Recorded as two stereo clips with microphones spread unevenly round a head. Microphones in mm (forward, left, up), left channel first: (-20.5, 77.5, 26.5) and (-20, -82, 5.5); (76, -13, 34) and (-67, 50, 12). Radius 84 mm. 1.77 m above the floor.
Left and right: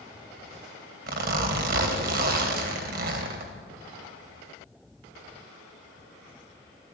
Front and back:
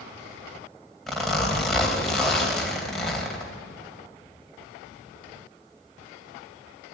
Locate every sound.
1.1 s a zipper: 105° right, 2 m